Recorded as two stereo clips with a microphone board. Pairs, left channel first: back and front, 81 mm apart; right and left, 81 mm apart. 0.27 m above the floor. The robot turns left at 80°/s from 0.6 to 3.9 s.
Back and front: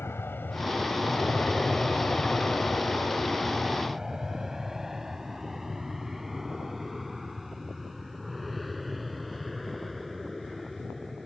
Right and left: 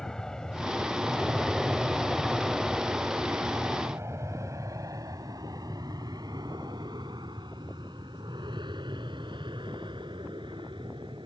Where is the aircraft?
165° right; by 11.3 s 90° left.